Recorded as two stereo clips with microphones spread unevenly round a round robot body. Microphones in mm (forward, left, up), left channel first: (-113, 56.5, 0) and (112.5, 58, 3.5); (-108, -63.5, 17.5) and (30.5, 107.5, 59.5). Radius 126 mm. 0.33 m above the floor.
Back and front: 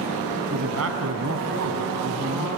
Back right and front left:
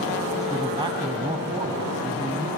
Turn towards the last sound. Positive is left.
turn(degrees=-20)